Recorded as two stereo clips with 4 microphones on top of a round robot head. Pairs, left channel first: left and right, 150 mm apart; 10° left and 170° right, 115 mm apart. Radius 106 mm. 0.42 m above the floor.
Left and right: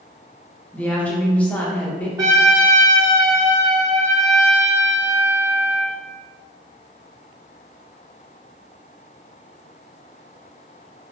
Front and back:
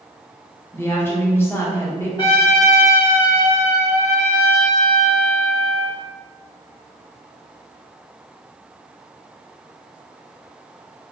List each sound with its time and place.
0.7 s a woman speaking: 25° left, 0.8 m
2.2 s a trumpet: 30° right, 1.7 m